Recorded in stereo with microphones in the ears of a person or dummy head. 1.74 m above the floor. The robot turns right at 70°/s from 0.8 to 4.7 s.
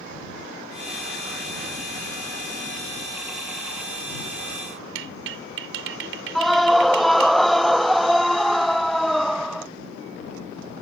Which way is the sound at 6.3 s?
5° left (ahead or behind).